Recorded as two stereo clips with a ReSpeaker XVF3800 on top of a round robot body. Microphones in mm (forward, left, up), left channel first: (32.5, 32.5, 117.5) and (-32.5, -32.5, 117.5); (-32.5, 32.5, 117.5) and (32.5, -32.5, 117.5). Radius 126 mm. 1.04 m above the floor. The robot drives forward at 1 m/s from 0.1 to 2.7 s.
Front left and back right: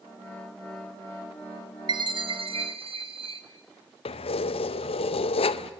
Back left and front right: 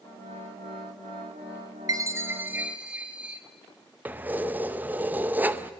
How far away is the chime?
About 1.5 m.